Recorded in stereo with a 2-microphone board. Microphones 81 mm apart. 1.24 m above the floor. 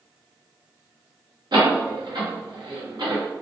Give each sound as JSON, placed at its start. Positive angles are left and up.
{"t": 1.5, "sound": "a door slam", "side_deg": -65, "distance_m": 0.8}